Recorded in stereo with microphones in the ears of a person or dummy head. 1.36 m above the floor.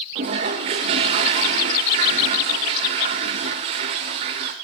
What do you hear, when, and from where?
0.1 s a toilet flushing: 25° right (ahead or behind), 1.1 m